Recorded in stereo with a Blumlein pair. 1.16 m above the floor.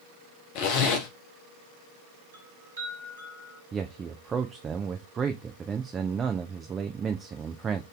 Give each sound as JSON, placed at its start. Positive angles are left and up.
{"t": 0.6, "sound": "a zipper", "azimuth_deg": 45, "distance_m": 0.9}
{"t": 2.3, "sound": "a chime", "azimuth_deg": -70, "distance_m": 2.5}
{"t": 3.7, "sound": "a man speaking", "azimuth_deg": -20, "distance_m": 0.5}